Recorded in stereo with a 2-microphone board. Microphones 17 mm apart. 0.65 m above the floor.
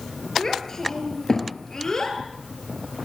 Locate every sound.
0.4 s a child speaking: 25° left (ahead or behind), 9 m; by 2.2 s 30° left (ahead or behind), 10 m